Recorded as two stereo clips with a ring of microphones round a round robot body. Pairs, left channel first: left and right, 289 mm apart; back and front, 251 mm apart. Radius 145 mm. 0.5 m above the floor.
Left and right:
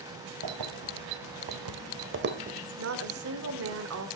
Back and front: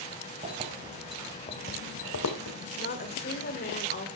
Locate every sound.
0.4 s keys jangling: 70° right, 1.8 m; by 2.6 s 155° right, 1.5 m
2.8 s a woman speaking: 125° right, 1.7 m